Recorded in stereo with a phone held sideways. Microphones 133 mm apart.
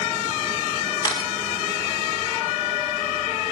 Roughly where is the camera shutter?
Left.